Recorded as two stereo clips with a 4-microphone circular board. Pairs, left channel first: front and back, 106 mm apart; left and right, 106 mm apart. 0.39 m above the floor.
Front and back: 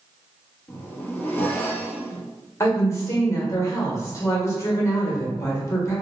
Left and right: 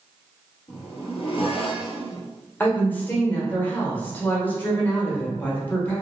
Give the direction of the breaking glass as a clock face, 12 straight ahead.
I don't hear breaking glass.